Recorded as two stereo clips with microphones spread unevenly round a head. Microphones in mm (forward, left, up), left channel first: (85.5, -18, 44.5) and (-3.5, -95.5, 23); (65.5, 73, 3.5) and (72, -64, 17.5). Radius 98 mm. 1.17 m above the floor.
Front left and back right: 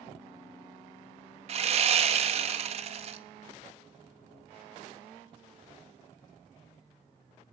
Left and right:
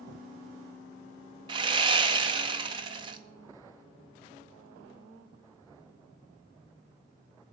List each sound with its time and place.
1.5 s sawing: 125° right, 0.6 m